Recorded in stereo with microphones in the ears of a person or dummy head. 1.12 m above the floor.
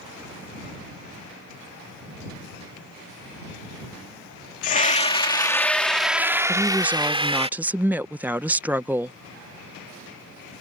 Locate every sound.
4.6 s a scream: 45° left (ahead or behind); by 7.5 s 25° right (ahead or behind)
6.5 s a woman speaking: 15° right (ahead or behind)